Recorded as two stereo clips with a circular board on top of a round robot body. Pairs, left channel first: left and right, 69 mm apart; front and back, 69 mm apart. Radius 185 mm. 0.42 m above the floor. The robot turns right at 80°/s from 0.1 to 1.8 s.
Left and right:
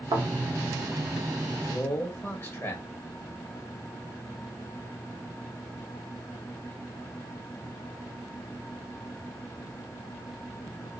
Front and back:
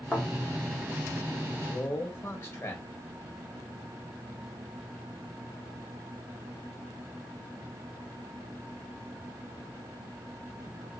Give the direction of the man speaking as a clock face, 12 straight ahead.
11 o'clock.